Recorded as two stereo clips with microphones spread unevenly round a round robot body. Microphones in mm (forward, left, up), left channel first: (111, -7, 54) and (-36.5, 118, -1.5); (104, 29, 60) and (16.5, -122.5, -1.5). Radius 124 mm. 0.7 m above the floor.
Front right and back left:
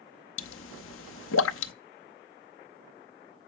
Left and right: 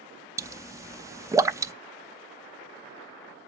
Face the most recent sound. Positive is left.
turn(degrees=-65)